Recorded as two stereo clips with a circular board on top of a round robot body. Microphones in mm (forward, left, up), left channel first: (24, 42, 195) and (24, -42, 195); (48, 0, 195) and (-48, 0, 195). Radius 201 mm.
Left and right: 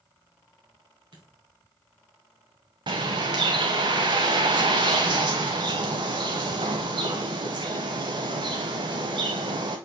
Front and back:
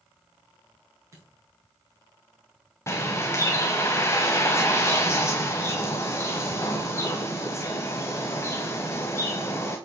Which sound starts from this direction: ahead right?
A bird, at 2.9 s.